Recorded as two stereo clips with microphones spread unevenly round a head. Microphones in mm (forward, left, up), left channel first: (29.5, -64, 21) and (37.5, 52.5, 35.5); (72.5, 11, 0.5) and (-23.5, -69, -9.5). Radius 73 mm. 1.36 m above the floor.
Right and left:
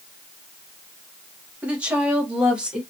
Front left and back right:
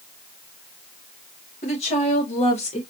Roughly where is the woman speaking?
Ahead.